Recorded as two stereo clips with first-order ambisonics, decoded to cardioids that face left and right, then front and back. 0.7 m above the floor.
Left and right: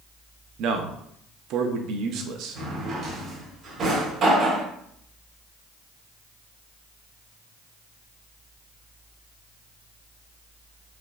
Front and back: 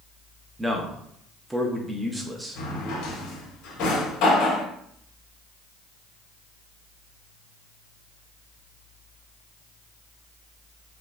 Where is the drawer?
30° right, 1.6 m.